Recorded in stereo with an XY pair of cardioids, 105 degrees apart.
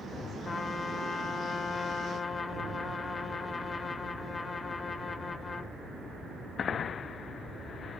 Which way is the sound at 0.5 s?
40° left.